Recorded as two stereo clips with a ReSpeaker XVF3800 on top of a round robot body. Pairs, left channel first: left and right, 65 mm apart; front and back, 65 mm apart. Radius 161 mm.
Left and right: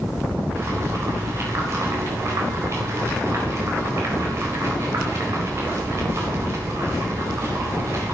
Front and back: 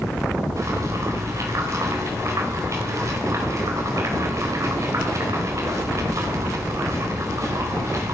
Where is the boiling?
140° right, 4.5 m.